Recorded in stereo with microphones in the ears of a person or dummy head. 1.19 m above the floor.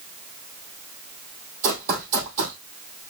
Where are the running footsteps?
50° right (ahead or behind), 2 m.